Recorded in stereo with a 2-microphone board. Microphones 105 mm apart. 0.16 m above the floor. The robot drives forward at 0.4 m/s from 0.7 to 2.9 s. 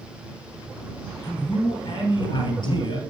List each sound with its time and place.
1.2 s a man speaking: 40° left (ahead or behind), 2.5 m; by 3.0 s 45° left (ahead or behind), 2.5 m